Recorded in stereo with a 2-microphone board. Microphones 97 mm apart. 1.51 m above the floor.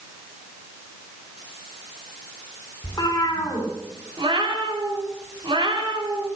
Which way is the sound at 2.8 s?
40° left (ahead or behind).